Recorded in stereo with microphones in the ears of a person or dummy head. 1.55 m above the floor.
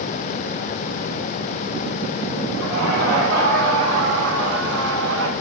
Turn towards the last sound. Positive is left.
turn(degrees=-75)  # may be behind; listen again after turning